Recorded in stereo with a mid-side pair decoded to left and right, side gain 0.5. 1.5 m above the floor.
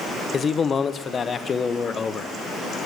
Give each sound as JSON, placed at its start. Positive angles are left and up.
{"t": 0.3, "sound": "a man speaking", "azimuth_deg": 35, "distance_m": 0.7}